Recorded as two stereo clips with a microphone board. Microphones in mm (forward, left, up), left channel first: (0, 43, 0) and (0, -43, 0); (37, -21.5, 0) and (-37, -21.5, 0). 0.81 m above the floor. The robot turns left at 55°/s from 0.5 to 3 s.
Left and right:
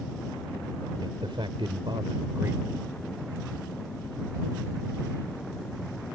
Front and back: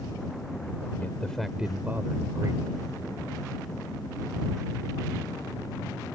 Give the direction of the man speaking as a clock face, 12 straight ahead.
2 o'clock.